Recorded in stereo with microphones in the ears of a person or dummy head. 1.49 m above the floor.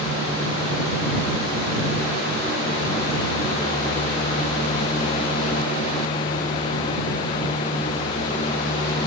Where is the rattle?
I don't hear a rattle.